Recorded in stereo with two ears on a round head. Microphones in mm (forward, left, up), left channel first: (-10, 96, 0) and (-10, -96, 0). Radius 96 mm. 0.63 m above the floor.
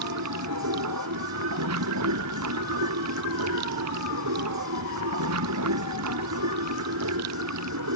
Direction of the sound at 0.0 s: 80° right.